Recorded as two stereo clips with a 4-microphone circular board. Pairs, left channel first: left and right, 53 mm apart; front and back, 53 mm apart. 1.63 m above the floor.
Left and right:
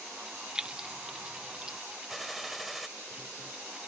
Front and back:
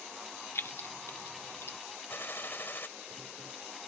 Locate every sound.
0.6 s keys jangling: 20° right
2.1 s a gunshot: 5° right